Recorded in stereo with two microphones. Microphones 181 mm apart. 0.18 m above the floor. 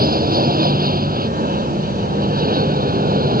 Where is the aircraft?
60° right (ahead or behind).